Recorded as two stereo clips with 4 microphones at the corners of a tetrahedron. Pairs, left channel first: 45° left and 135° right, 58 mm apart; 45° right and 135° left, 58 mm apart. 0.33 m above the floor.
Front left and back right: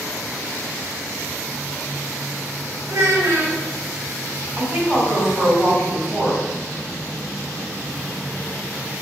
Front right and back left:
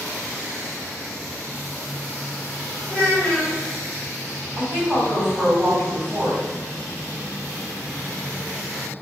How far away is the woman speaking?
About 1.7 m.